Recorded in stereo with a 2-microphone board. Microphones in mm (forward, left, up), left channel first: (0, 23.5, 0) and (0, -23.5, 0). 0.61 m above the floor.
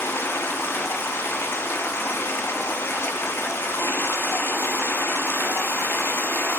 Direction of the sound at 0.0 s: 55° left (ahead or behind).